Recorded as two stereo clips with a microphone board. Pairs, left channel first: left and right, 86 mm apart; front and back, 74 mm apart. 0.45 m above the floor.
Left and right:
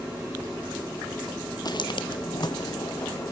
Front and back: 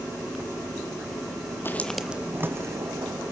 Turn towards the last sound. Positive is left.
turn(degrees=145)